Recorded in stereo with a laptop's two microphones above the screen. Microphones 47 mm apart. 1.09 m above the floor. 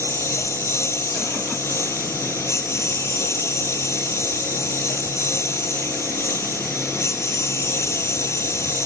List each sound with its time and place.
0.0 s a lawn mower: 70° left (ahead or behind)